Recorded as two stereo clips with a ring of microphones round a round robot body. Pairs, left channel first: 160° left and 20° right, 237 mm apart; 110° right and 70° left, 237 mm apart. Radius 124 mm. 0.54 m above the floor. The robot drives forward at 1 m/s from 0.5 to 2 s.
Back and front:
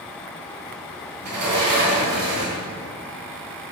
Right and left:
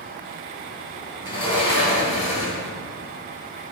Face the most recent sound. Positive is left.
turn(degrees=-50)